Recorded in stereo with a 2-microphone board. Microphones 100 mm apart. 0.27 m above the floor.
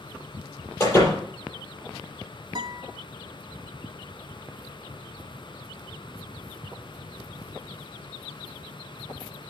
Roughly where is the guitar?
Right.